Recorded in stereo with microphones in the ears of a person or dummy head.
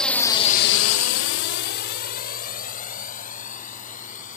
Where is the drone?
Centre (ahead or behind); by 4.4 s 45° left (ahead or behind).